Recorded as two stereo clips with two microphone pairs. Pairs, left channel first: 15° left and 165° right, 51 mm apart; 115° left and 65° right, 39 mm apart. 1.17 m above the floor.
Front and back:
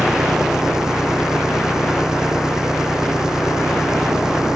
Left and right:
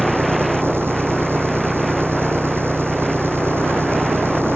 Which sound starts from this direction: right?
An engine running, at 0.0 s.